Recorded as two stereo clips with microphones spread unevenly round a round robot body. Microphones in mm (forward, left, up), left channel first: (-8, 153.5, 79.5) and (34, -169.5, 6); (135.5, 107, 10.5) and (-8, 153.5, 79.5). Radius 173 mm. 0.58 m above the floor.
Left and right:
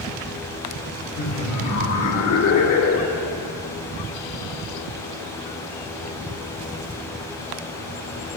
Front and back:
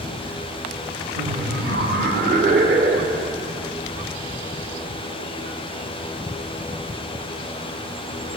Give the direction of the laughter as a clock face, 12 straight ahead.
7 o'clock.